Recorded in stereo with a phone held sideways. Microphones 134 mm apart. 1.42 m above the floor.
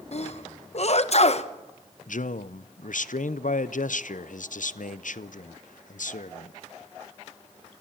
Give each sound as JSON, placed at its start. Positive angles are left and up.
{"t": 0.1, "sound": "a sneeze", "side_deg": 50, "distance_m": 1.0}
{"t": 2.1, "sound": "a man speaking", "side_deg": 70, "distance_m": 0.6}